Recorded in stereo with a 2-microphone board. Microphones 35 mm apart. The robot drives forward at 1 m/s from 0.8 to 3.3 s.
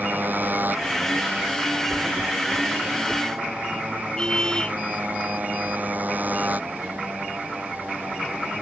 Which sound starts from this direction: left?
A car horn, at 4.2 s.